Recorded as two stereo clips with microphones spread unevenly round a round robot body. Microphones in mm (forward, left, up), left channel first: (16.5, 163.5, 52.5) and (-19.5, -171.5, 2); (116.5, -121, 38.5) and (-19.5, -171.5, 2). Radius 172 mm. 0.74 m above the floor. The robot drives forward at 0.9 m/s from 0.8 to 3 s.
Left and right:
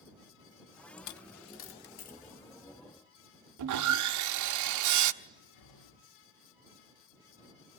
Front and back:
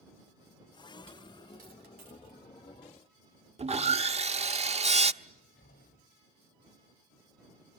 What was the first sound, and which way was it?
A dropped coin, 100° left.